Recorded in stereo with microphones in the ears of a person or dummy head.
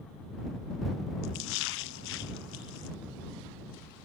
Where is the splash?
65° left (ahead or behind).